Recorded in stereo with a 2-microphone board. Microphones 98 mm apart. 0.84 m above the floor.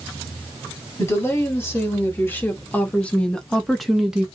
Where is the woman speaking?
25° left (ahead or behind), 2 m; by 4.2 s 10° right (ahead or behind), 0.9 m.